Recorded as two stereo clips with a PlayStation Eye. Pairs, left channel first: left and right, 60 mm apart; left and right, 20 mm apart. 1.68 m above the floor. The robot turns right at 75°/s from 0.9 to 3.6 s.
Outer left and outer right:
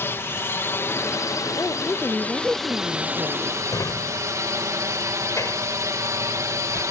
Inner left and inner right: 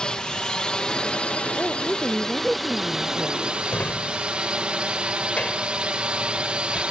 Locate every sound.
0.0 s a drone: 45° left; by 6.9 s 110° right
1.6 s a woman speaking: 125° left; by 3.5 s 85° right
3.7 s a drawer: 65° left (ahead or behind)